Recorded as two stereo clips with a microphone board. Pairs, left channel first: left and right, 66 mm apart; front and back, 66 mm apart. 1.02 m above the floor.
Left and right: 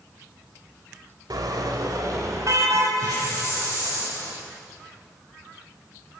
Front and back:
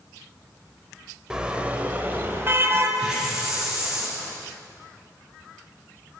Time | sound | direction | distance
1.3 | a car horn | 100° right | 2 m
3.0 | a hiss | 100° right | 8.5 m